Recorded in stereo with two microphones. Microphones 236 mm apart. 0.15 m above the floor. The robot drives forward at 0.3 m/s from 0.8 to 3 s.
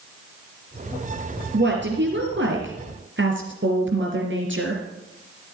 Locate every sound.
1.5 s a woman speaking: 50° right (ahead or behind), 3 m; by 4.8 s 55° right (ahead or behind), 3 m